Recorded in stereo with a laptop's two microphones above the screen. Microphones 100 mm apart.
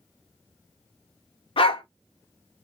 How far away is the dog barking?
About 0.7 m.